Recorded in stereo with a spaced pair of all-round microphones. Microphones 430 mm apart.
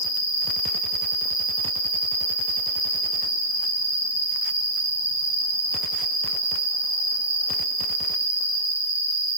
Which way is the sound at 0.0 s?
10° left (ahead or behind).